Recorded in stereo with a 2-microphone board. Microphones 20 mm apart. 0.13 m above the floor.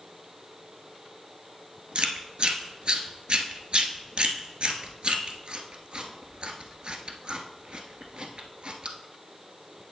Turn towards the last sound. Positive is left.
turn(degrees=-55)  # may be behind; listen again after turning